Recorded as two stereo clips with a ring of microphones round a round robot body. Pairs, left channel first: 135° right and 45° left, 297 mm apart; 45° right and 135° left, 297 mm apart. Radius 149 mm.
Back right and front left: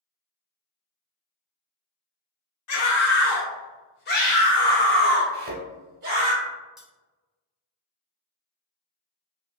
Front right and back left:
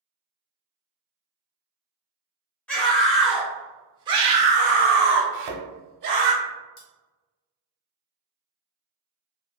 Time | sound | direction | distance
2.7 | a scream | 130° right | 1.4 m
5.3 | a thud | 105° left | 0.9 m
6.8 | cutlery clinking | 45° right | 0.9 m